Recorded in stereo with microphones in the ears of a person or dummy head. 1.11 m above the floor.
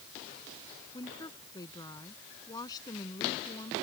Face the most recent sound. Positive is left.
turn(degrees=20)  # may be behind; listen again after turning